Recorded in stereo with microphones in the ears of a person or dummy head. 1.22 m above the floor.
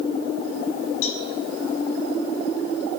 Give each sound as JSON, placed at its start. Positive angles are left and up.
{"t": 1.0, "sound": "a cowbell", "side_deg": 80, "distance_m": 5.0}